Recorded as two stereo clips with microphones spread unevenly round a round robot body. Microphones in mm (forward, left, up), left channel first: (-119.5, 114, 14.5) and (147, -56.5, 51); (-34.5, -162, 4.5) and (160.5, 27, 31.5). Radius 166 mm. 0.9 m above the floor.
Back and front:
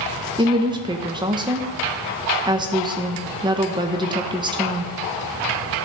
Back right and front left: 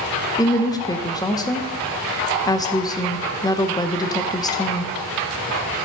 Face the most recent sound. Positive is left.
turn(degrees=-105)